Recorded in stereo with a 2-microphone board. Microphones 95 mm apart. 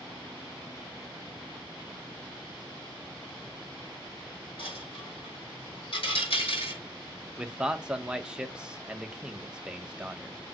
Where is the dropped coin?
75° left (ahead or behind), 6 m.